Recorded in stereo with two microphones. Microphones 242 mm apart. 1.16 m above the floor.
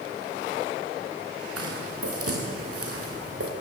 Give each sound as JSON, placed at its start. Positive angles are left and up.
{"t": 1.6, "sound": "footsteps", "side_deg": -70, "distance_m": 6.0}